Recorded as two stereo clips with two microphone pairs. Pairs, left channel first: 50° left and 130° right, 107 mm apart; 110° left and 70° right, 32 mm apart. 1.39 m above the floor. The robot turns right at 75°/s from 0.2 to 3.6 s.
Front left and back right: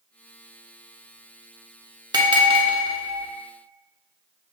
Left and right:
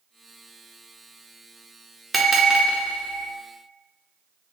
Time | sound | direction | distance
2.1 | a bell | 160° right | 0.5 m